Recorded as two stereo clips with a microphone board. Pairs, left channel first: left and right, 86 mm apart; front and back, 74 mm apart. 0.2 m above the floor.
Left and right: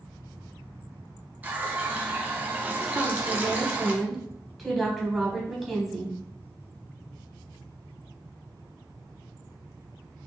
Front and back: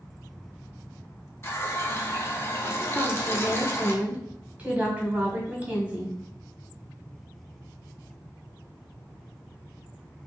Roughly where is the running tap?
Ahead right.